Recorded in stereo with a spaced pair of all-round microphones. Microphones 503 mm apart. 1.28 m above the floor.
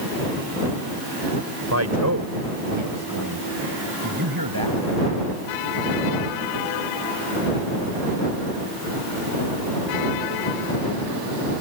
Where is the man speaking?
30° right (ahead or behind); by 4.8 s 45° right (ahead or behind).